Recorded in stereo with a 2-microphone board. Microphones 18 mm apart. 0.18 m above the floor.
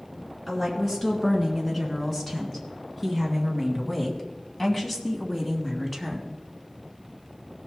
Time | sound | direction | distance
0.5 | a woman speaking | 15° left (ahead or behind) | 3 m